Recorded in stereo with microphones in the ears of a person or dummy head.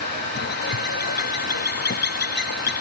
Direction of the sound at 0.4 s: 50° left (ahead or behind).